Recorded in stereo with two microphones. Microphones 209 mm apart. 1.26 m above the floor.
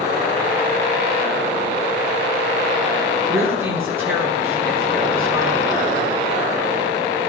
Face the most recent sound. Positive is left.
turn(degrees=-10)  # may be behind; listen again after turning